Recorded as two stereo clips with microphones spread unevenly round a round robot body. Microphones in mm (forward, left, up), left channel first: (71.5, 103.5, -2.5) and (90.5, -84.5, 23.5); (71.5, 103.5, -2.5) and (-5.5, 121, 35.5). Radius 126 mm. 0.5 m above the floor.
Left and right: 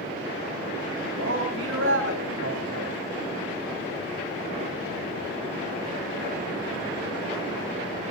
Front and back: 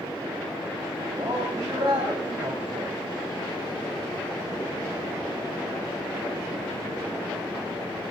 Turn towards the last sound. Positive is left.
turn(degrees=-125)